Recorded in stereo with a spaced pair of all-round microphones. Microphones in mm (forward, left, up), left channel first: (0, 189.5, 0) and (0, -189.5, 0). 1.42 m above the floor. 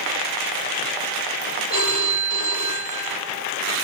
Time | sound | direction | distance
1.7 | a phone ringing | 60° left (ahead or behind) | 4 m